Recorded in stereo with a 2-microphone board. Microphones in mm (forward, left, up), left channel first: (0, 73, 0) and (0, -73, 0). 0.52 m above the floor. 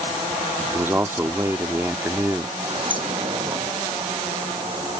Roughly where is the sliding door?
Right.